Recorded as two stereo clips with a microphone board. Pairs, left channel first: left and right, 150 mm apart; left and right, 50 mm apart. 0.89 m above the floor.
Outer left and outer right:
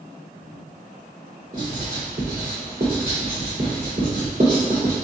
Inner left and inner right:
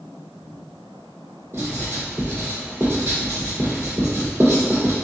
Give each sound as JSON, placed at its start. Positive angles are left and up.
{"t": 1.5, "sound": "writing", "side_deg": -70, "distance_m": 1.8}